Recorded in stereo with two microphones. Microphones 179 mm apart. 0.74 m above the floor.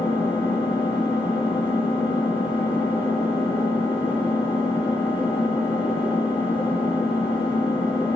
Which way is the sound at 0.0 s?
30° left (ahead or behind).